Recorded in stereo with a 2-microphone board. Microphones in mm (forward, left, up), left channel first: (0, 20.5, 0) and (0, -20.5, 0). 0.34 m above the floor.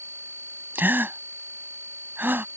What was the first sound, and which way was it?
A gasp, 60° right (ahead or behind).